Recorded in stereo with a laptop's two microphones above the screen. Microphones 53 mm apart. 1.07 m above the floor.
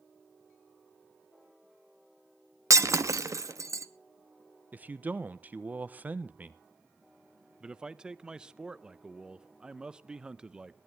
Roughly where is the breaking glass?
Right.